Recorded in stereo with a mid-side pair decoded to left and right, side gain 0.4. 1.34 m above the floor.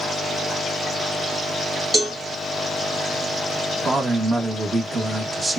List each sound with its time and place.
1.9 s a cowbell: 15° right, 2 m
3.9 s a man speaking: 30° right, 1.4 m